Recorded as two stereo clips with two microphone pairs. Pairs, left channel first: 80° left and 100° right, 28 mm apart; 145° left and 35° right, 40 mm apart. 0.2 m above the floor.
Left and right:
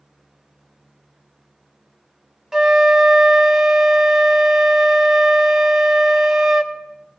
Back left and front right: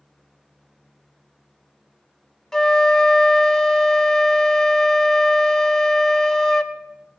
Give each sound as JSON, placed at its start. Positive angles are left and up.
{"t": 2.5, "sound": "a flute", "azimuth_deg": -150, "distance_m": 0.7}